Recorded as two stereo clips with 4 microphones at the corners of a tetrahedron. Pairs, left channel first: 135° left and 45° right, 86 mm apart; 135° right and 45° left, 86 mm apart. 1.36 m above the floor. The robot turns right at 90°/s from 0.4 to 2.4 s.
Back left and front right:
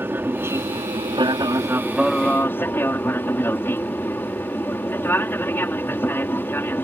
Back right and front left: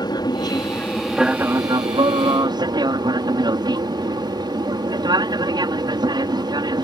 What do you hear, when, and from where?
0.0 s an aircraft: 105° right; by 6.8 s 75° left